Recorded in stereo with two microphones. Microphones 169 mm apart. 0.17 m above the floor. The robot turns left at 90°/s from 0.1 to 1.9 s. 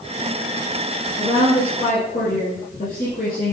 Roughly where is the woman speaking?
Behind.